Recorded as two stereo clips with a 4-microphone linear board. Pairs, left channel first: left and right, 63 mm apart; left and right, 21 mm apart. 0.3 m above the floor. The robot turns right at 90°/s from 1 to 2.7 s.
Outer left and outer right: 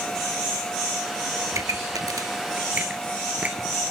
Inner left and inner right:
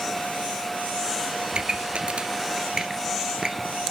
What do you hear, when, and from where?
1.5 s a pop: 50° right (ahead or behind), 1.0 m; by 3.8 s 20° right (ahead or behind), 1.0 m